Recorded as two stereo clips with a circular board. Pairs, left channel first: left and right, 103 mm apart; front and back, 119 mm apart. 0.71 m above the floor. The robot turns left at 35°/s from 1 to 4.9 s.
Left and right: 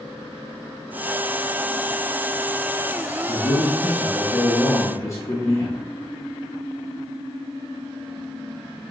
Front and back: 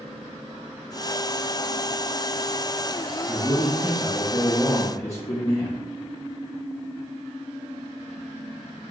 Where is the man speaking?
110° left, 0.7 m; by 5.8 s 50° left, 0.7 m.